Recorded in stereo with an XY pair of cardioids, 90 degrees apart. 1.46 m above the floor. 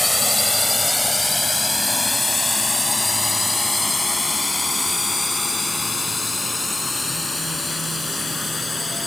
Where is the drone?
5° left; by 9.1 s 15° left.